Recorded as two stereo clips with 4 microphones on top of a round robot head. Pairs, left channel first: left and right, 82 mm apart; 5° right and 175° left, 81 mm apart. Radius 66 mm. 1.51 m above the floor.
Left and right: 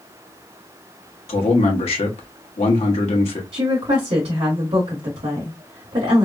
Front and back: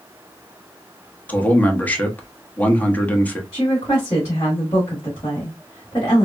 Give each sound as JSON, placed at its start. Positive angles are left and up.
{"t": 1.3, "sound": "a man speaking", "azimuth_deg": 65, "distance_m": 1.0}
{"t": 3.5, "sound": "a woman speaking", "azimuth_deg": -70, "distance_m": 1.5}